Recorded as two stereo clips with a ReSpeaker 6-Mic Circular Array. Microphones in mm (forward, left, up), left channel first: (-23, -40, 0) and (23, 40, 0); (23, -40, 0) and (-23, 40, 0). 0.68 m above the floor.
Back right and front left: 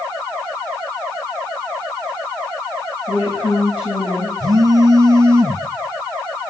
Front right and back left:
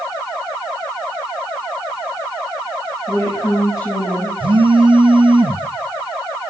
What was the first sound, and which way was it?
A woman speaking, 110° right.